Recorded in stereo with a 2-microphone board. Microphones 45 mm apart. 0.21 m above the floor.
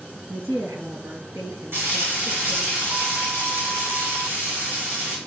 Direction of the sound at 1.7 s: 65° right (ahead or behind).